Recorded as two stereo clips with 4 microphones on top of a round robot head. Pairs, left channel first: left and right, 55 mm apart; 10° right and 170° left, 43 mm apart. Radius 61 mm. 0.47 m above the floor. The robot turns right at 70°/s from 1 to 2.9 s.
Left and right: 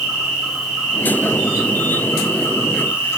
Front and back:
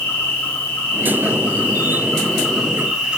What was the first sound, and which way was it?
An insect, 15° right.